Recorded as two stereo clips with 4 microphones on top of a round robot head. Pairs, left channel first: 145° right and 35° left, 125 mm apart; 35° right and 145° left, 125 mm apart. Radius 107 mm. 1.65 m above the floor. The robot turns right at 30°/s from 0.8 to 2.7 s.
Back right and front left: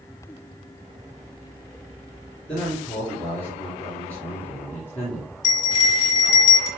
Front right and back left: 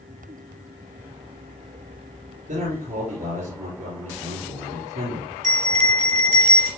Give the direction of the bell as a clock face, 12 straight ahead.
7 o'clock.